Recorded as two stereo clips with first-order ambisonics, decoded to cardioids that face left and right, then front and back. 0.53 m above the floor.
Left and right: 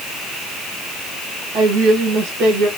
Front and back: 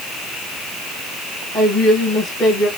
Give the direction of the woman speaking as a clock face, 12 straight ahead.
3 o'clock.